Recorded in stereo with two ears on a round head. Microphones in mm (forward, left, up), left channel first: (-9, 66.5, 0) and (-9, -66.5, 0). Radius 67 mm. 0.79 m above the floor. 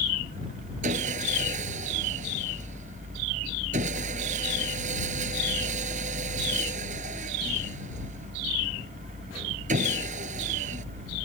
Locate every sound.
0.8 s sawing: 50° right (ahead or behind)